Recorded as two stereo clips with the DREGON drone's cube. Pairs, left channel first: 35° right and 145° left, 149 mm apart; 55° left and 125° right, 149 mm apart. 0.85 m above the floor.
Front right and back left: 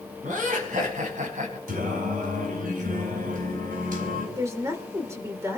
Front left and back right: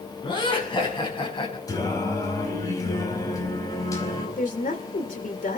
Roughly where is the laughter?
Behind left.